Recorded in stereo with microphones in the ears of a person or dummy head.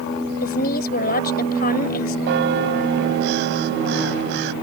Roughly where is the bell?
Right.